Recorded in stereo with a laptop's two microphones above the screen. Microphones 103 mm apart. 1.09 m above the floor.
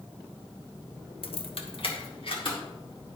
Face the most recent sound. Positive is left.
turn(degrees=55)  # may be behind; listen again after turning